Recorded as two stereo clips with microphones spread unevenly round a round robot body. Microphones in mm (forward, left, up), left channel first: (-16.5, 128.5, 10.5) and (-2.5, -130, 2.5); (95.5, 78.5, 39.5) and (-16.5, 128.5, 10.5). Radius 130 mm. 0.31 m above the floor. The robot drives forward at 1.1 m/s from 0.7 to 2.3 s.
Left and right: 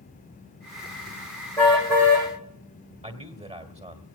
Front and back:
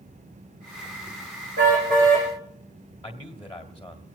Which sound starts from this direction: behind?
A car horn, at 1.6 s.